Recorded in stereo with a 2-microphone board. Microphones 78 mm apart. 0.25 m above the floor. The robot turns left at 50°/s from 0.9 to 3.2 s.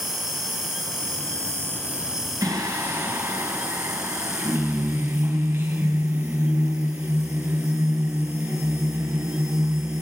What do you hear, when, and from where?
0.0 s an insect: 105° right, 1.7 m; by 10.0 s 140° left, 1.7 m
2.4 s singing: 100° right, 1.9 m; by 10.0 s 140° right, 1.9 m